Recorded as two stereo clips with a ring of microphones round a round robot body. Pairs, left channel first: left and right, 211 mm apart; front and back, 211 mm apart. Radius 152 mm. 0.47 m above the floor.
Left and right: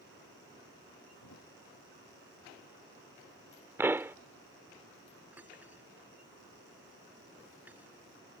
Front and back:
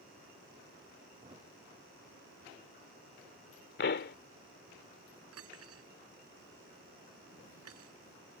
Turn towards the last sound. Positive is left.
turn(degrees=-175)